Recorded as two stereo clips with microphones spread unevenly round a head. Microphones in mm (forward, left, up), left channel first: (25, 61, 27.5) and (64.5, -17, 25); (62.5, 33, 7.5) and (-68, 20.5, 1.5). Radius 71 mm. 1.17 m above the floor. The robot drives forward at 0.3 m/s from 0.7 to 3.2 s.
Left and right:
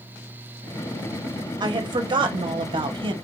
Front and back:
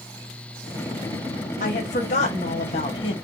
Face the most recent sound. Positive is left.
turn(degrees=-55)